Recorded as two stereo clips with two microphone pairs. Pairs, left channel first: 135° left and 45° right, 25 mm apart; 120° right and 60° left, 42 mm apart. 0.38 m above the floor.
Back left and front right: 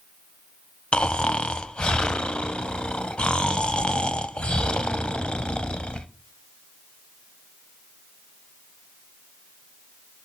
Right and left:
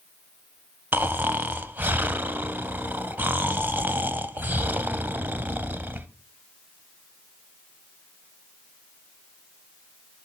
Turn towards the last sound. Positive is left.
turn(degrees=95)